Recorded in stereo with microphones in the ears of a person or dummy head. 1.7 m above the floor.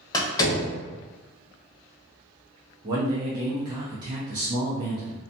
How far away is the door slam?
About 0.7 m.